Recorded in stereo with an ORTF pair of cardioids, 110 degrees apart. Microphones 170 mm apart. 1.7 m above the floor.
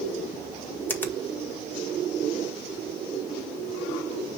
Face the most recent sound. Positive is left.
turn(degrees=15)